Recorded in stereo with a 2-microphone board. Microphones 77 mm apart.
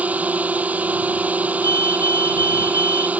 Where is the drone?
20° right (ahead or behind).